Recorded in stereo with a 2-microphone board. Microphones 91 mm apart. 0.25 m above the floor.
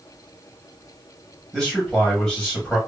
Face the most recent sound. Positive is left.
turn(degrees=5)  # may be behind; listen again after turning